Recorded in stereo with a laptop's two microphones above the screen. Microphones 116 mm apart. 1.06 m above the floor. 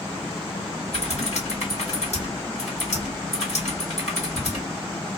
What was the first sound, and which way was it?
Typing on a keyboard, 80° left.